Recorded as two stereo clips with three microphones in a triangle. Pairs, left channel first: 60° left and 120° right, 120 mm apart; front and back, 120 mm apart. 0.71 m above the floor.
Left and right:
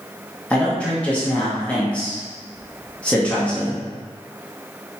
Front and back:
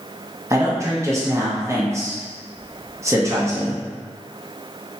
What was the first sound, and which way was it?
A man speaking, 130° left.